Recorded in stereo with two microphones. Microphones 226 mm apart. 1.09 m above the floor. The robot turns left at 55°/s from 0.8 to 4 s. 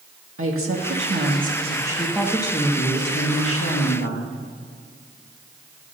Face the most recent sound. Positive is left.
turn(degrees=75)